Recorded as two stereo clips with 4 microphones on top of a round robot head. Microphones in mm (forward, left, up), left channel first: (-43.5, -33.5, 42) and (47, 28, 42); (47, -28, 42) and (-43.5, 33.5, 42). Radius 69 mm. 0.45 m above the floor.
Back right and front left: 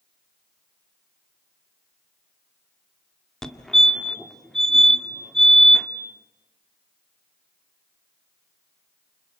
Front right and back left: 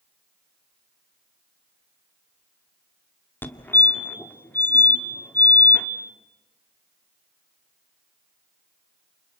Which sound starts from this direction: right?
A fire alarm, at 3.4 s.